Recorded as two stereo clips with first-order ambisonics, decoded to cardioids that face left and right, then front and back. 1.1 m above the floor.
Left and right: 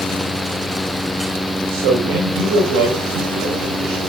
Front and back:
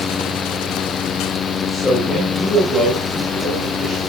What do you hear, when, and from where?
1.7 s a man speaking: 75° right, 5 m; by 4.0 s 95° right, 7.5 m